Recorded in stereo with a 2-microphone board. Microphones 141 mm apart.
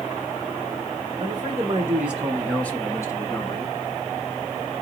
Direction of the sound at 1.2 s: 30° right (ahead or behind).